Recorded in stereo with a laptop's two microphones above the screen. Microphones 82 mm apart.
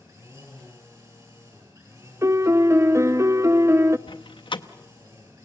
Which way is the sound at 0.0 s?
40° right (ahead or behind).